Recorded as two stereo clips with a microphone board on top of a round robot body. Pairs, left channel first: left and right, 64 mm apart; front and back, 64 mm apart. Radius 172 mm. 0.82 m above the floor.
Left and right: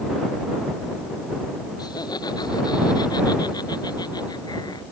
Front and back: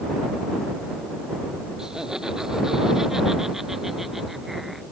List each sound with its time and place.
1.8 s laughter: 100° left; by 4.8 s 95° left